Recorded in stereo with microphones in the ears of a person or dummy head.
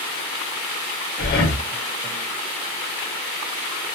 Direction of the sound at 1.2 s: 55° left (ahead or behind).